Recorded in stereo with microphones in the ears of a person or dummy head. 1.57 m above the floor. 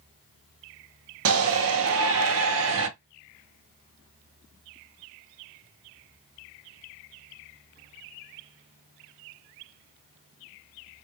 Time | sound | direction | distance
1.2 | a shout | 80° right | 1.2 m